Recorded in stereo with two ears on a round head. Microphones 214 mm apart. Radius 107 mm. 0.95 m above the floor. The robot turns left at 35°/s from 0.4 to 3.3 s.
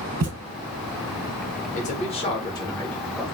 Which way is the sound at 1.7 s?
55° left.